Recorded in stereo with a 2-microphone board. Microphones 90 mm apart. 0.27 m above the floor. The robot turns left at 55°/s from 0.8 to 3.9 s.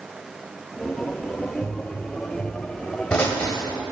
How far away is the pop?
About 1.1 m.